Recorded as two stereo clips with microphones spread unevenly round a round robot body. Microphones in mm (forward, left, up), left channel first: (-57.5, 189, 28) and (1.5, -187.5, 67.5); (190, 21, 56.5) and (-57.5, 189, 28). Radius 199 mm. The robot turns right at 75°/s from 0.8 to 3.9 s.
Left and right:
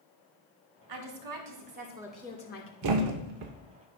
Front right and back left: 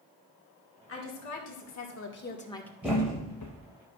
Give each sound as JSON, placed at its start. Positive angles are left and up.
{"t": 0.9, "sound": "a woman speaking", "azimuth_deg": -80, "distance_m": 1.5}
{"t": 2.8, "sound": "a thud", "azimuth_deg": -130, "distance_m": 0.7}